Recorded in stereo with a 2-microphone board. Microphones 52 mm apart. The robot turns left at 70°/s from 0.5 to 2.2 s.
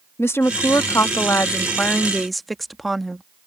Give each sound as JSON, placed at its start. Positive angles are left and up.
{"t": 0.2, "sound": "a woman speaking", "azimuth_deg": 120}